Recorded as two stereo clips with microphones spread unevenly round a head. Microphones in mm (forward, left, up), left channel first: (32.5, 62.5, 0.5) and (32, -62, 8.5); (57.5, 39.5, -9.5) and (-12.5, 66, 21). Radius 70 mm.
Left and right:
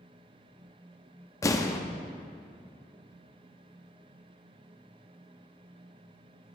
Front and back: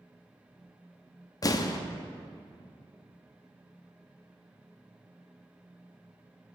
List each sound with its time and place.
1.4 s an explosion: 25° left, 0.7 m